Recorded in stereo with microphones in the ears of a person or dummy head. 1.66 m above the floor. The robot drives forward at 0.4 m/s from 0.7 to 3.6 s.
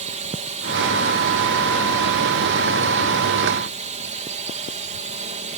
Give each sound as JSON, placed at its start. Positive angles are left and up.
{"t": 0.0, "sound": "a drone", "side_deg": -30}